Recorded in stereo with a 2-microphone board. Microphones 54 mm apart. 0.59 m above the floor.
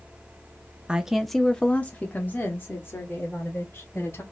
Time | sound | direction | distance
0.9 | a woman speaking | 20° right (ahead or behind) | 0.6 m